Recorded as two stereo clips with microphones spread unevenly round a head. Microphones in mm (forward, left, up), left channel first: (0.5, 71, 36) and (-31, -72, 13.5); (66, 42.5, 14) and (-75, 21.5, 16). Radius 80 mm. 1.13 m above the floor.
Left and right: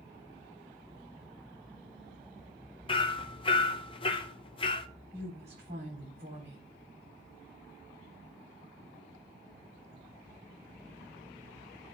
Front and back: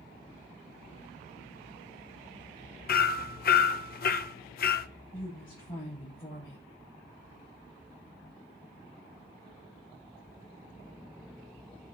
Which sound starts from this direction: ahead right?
A woman speaking, at 5.1 s.